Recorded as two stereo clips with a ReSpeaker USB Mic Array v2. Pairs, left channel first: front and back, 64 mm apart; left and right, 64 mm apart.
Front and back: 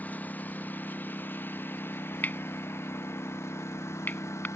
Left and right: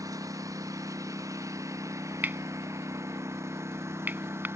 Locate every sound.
0.0 s a lawn mower: 65° right; by 4.6 s 45° right
2.2 s cutlery clinking: 45° right